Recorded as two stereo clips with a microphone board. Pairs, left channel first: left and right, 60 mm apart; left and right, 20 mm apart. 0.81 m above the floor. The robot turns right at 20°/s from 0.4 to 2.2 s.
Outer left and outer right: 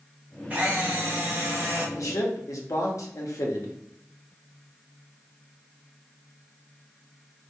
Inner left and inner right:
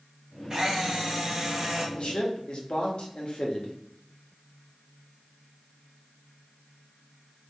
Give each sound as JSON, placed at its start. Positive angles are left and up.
{"t": 0.5, "sound": "a camera shutter", "side_deg": -25, "distance_m": 1.0}
{"t": 1.9, "sound": "a man speaking", "side_deg": 65, "distance_m": 0.8}